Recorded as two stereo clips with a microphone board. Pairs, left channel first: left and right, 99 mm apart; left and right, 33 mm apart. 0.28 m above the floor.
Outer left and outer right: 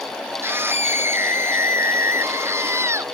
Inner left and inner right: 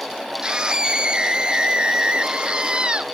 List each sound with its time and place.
0.4 s a scream: 25° right (ahead or behind)